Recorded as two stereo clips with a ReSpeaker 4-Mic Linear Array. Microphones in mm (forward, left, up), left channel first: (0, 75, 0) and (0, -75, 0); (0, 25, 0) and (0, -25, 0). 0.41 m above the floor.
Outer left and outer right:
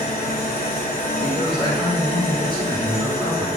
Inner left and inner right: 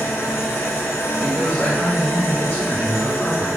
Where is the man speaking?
25° left (ahead or behind), 1.8 m.